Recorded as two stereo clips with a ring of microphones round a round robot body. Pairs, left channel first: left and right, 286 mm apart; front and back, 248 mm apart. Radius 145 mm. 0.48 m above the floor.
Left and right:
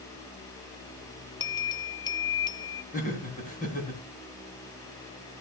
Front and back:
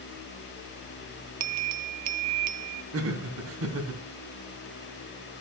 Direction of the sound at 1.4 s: 165° left.